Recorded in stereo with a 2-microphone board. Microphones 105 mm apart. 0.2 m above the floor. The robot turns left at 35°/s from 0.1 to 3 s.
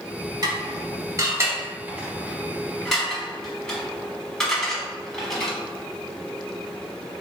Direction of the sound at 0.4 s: 40° right (ahead or behind).